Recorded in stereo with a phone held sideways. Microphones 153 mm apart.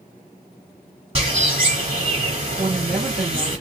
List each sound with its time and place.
1.1 s a bird: 45° right (ahead or behind), 3 m
2.6 s a woman speaking: 60° right (ahead or behind), 1.9 m